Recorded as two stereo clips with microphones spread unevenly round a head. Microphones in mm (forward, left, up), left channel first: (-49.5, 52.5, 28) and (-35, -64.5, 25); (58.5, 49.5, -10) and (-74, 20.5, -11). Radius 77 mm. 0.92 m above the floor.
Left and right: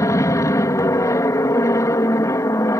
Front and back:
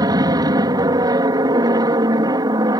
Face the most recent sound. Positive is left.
turn(degrees=145)